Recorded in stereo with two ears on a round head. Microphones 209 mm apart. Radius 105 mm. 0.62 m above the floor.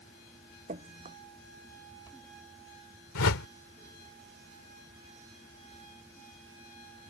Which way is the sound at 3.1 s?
65° left (ahead or behind).